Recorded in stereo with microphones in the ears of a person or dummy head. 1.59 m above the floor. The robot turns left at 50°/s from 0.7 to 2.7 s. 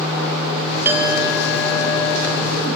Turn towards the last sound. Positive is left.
turn(degrees=100)